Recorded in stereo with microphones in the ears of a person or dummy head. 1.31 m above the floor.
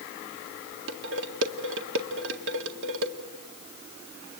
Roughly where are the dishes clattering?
Right.